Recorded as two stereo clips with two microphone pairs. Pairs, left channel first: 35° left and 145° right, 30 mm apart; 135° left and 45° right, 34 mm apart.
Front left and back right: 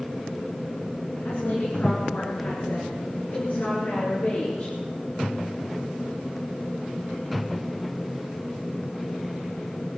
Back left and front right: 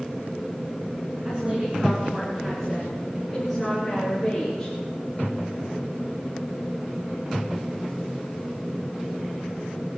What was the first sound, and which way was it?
A woman speaking, 10° left.